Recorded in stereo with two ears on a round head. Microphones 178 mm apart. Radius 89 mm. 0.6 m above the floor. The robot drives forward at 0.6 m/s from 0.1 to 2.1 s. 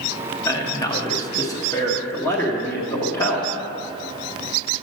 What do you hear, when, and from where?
0.5 s a man speaking: 15° left (ahead or behind), 0.9 m